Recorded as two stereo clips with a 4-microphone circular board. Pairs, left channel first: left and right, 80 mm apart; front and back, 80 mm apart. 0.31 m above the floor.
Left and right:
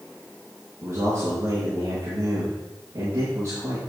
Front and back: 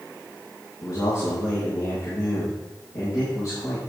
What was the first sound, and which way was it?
A man speaking, 40° right.